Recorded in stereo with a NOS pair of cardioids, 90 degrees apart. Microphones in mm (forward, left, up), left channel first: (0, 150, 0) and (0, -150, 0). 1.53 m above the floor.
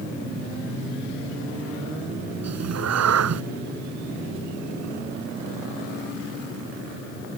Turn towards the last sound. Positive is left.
turn(degrees=-60)